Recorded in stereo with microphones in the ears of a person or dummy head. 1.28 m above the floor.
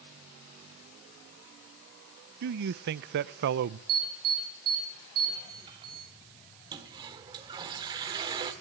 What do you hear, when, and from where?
2.4 s a man speaking: 55° right (ahead or behind), 0.5 m
3.9 s an alarm: 25° right (ahead or behind), 8 m
6.7 s a toilet flushing: 25° right (ahead or behind), 1.6 m